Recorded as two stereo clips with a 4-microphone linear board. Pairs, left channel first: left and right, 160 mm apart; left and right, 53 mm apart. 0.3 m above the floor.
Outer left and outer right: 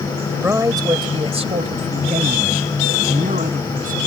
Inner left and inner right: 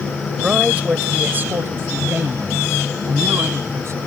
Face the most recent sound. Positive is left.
turn(degrees=-60)  # may be behind; listen again after turning